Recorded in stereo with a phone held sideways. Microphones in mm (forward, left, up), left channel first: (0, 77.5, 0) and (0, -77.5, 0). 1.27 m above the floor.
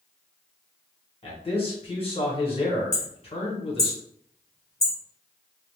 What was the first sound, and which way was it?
A man speaking, 35° left (ahead or behind).